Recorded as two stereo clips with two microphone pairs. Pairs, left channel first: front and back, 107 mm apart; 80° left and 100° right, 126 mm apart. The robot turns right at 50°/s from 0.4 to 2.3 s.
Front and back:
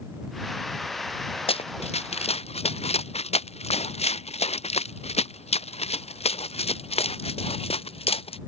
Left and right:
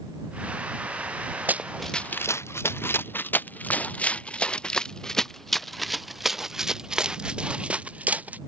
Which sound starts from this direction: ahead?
Running footsteps, at 1.5 s.